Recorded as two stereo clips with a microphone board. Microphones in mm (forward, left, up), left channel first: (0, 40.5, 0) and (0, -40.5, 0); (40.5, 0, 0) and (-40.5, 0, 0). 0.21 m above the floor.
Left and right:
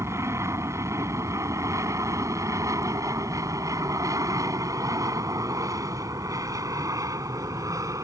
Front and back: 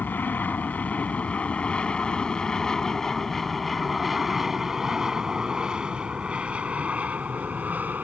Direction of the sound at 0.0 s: 55° right.